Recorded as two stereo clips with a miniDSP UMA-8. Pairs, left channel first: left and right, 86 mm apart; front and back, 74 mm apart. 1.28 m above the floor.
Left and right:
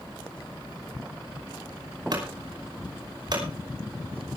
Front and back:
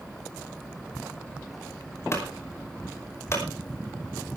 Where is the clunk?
55° right, 5.5 m.